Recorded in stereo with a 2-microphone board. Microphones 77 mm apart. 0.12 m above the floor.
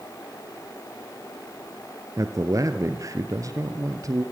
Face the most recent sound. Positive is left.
turn(degrees=-45)  # may be behind; listen again after turning